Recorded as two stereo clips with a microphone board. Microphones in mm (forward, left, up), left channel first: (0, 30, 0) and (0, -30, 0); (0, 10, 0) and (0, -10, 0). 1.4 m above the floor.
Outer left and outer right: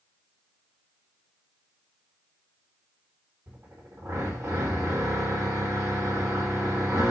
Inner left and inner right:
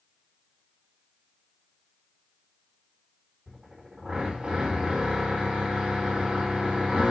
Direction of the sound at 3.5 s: 45° right (ahead or behind).